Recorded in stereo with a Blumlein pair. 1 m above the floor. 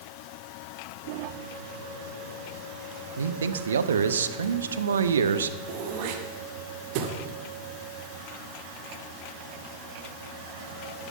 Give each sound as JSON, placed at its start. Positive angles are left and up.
{"t": 3.2, "sound": "a man speaking", "azimuth_deg": -70, "distance_m": 1.0}
{"t": 5.7, "sound": "throat clearing", "azimuth_deg": -45, "distance_m": 1.9}